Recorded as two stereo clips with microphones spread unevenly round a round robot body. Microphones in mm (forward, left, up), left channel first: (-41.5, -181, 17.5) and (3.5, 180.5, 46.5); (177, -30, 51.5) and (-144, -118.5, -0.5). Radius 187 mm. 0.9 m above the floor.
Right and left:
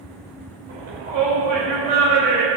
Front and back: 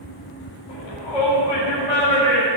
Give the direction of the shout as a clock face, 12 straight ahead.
12 o'clock.